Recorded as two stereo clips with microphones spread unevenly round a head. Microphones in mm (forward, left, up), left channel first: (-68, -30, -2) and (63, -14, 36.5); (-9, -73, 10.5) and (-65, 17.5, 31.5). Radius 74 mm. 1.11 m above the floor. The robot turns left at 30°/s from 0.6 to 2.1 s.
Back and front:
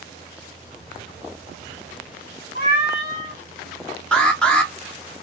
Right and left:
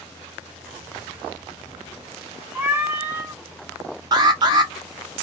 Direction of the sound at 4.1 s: 145° left.